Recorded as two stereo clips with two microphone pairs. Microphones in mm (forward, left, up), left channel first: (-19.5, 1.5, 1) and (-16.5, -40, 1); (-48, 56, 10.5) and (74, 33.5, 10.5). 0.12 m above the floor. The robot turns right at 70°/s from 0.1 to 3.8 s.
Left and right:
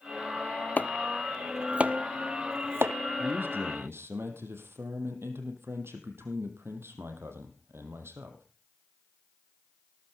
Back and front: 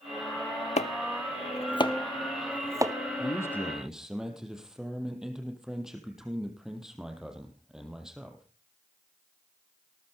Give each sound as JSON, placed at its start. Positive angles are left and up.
{"t": 0.8, "sound": "chopping", "azimuth_deg": 145, "distance_m": 0.8}
{"t": 3.2, "sound": "a man speaking", "azimuth_deg": -140, "distance_m": 3.5}